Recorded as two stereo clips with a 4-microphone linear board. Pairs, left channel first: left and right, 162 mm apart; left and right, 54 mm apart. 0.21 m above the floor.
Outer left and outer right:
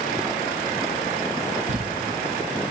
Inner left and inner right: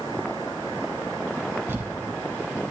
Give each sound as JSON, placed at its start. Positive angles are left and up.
{"t": 1.7, "sound": "crumpling", "side_deg": -50, "distance_m": 1.7}